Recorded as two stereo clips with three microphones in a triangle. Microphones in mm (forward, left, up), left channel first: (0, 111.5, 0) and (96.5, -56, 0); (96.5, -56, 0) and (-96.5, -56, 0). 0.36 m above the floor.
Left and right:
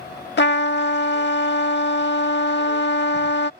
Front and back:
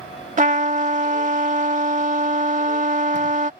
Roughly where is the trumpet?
Behind left.